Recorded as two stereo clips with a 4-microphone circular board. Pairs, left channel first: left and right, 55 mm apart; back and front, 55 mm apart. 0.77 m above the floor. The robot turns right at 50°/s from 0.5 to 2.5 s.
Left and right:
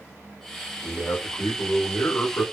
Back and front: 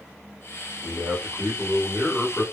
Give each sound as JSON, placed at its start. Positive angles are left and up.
{"t": 0.8, "sound": "a man speaking", "azimuth_deg": 30, "distance_m": 2.0}